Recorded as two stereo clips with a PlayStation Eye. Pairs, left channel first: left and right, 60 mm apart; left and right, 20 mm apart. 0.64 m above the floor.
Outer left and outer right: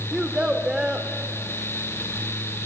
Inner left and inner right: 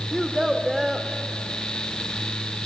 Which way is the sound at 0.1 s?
15° right (ahead or behind).